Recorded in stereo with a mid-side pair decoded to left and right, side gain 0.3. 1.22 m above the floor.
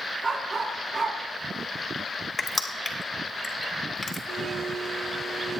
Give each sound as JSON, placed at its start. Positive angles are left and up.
{"t": 0.2, "sound": "a dog barking", "azimuth_deg": -50, "distance_m": 5.5}
{"t": 2.4, "sound": "crushing", "azimuth_deg": 35, "distance_m": 2.5}
{"t": 4.3, "sound": "a blender", "azimuth_deg": -70, "distance_m": 5.0}